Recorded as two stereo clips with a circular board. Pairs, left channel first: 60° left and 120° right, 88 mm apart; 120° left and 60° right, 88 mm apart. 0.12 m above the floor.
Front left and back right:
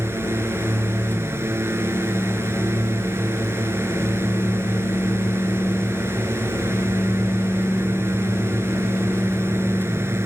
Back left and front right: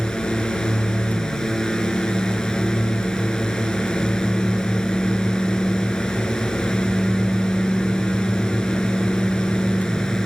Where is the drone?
160° right.